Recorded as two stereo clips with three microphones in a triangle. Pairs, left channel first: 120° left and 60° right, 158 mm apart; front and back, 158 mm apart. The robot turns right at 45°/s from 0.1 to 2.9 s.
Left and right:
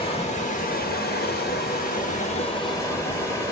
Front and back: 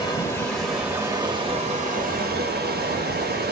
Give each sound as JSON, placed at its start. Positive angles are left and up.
{"t": 0.0, "sound": "running water", "azimuth_deg": 65, "distance_m": 1.2}